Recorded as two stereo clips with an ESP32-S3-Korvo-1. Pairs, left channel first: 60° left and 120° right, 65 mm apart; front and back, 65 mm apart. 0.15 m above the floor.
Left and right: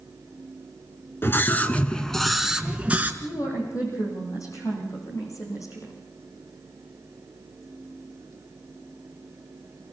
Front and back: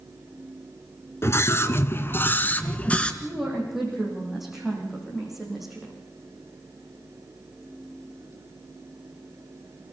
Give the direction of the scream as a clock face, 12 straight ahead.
11 o'clock.